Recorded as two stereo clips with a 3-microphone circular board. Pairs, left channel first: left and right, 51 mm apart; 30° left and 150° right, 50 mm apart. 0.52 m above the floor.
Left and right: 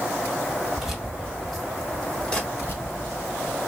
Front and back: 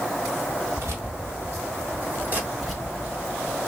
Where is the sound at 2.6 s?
130° left, 2.5 m.